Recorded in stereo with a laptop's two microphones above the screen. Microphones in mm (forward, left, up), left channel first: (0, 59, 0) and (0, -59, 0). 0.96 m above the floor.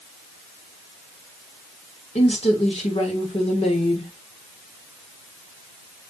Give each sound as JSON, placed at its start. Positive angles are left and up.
{"t": 2.1, "sound": "a woman speaking", "side_deg": 65, "distance_m": 3.5}